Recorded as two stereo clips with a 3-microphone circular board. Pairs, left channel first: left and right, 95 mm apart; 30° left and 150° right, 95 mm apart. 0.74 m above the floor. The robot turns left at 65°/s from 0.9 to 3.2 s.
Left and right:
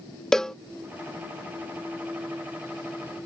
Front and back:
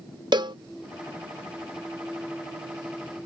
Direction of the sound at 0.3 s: 175° left.